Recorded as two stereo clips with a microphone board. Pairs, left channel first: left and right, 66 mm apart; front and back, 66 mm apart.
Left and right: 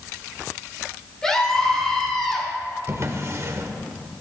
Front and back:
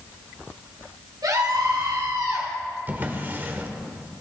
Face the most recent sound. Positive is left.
turn(degrees=-125)